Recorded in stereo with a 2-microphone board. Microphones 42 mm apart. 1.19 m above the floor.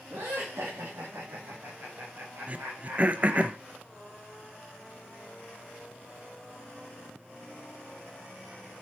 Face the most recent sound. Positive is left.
turn(degrees=-35)  # may be behind; listen again after turning